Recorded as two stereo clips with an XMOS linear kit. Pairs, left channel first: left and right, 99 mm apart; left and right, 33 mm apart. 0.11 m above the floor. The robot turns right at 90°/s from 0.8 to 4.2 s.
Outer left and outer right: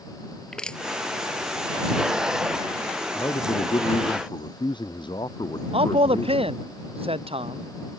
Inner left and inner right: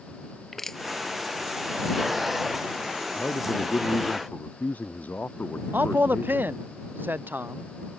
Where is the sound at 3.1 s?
30° left; by 6.6 s 125° left.